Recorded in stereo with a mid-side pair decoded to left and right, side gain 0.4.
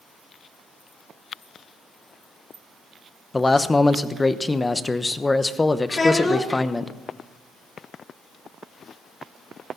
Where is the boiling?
I don't hear boiling.